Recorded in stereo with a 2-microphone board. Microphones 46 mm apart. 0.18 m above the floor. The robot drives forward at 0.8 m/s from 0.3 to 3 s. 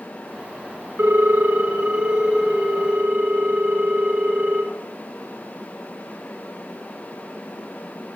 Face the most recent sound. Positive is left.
turn(degrees=-15)  # may be behind; listen again after turning